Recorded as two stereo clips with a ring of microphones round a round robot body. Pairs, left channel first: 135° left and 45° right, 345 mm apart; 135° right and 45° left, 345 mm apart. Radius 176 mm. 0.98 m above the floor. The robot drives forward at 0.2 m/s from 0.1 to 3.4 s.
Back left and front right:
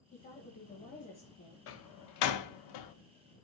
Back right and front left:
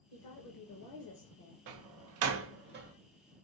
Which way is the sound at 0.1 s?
155° right.